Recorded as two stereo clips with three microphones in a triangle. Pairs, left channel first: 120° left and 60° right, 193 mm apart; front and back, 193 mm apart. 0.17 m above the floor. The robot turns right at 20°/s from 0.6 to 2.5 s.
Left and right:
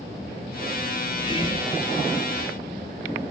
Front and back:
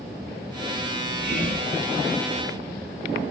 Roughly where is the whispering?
Left.